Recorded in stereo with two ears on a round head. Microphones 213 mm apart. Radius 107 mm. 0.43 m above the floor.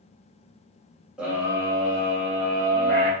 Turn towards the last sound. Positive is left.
turn(degrees=-40)  # may be behind; listen again after turning